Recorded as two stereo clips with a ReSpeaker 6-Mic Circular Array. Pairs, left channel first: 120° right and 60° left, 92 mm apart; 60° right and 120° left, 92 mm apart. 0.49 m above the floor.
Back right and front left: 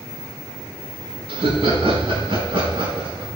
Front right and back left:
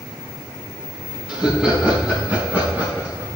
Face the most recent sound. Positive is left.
turn(degrees=55)